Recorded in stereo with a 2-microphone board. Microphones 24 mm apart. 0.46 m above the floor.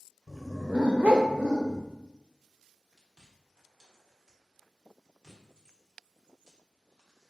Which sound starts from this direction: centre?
A dog barking, at 0.3 s.